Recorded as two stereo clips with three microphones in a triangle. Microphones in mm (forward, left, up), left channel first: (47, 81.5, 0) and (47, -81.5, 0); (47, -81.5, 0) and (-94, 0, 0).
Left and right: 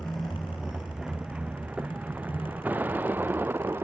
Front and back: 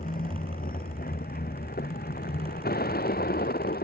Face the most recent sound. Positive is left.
turn(degrees=-15)